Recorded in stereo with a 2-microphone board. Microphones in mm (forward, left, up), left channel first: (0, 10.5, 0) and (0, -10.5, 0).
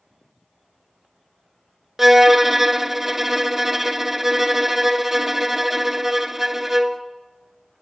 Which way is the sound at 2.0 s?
15° right (ahead or behind).